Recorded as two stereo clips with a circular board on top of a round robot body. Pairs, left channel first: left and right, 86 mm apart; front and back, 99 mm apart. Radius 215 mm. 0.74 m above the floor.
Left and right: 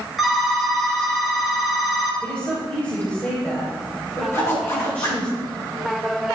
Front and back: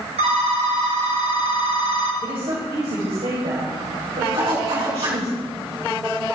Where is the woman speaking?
160° left, 4 m.